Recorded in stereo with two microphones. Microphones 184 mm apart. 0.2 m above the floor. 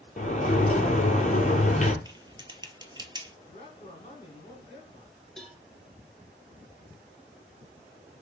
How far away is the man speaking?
About 2.5 m.